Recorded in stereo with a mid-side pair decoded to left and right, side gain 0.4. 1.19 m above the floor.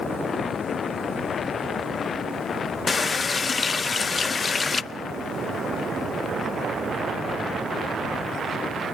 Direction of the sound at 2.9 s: 40° left.